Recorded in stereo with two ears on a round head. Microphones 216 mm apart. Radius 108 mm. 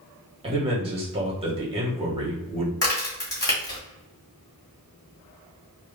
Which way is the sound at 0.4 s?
25° right (ahead or behind).